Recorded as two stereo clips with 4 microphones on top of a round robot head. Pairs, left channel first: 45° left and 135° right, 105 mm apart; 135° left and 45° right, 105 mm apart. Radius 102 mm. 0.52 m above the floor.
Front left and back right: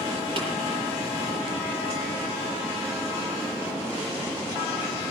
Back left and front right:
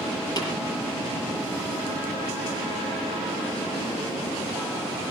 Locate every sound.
0.4 s tapping: 175° right, 7.5 m